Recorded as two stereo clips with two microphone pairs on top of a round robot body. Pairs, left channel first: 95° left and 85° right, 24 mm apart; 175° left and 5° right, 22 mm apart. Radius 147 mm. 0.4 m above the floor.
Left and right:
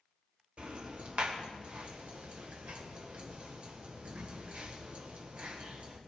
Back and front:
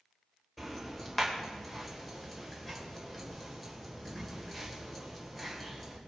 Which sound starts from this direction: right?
Ticking, at 0.6 s.